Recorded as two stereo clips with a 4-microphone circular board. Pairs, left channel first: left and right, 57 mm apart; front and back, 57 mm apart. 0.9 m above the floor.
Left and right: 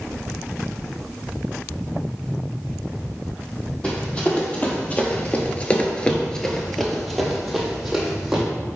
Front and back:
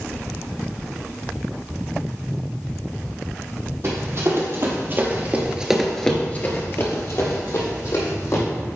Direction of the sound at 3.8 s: 155° left.